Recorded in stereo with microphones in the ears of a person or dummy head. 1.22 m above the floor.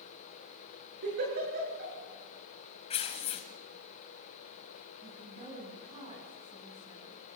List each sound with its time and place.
1.0 s a giggle: 55° right (ahead or behind), 7.5 m
2.9 s tearing paper: 35° left (ahead or behind), 2.0 m
5.0 s a woman speaking: 30° right (ahead or behind), 7.5 m